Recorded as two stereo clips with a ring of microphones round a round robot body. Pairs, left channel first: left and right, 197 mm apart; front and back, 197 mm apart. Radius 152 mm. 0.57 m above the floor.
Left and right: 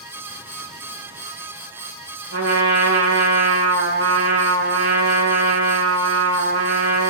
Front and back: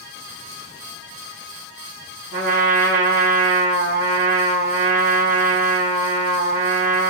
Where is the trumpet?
135° right, 1.3 m.